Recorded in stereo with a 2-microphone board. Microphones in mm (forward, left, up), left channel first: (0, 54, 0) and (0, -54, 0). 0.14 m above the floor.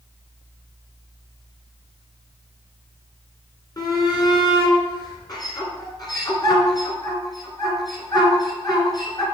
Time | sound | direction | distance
3.8 | a shout | 40° left (ahead or behind) | 2 m